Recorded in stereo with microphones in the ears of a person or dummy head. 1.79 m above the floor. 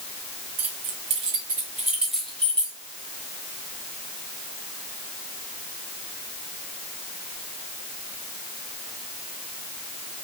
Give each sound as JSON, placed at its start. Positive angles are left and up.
{"t": 0.6, "sound": "keys jangling", "side_deg": -35, "distance_m": 1.5}